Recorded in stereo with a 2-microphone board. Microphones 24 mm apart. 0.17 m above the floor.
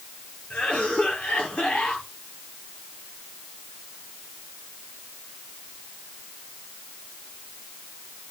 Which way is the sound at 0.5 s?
60° left (ahead or behind).